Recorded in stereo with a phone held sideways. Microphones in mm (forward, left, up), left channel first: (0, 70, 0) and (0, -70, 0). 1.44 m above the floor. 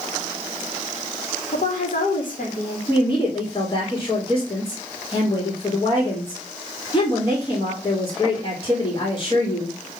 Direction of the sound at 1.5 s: 70° left (ahead or behind).